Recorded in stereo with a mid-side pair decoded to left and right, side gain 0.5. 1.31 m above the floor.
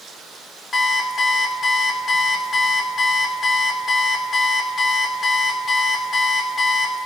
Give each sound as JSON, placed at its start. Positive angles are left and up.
{"t": 0.7, "sound": "an alarm clock", "azimuth_deg": 30, "distance_m": 2.5}